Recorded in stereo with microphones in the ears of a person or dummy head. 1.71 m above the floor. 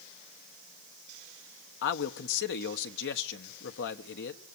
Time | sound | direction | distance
1.8 | a man speaking | 65° left (ahead or behind) | 1.2 m